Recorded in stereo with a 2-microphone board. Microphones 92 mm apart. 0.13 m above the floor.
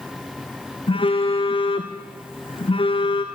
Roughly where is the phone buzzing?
Left.